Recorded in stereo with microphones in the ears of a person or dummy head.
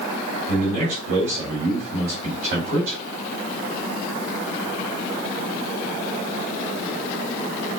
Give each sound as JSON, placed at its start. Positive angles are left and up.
{"t": 0.5, "sound": "a man speaking", "side_deg": -45, "distance_m": 2.5}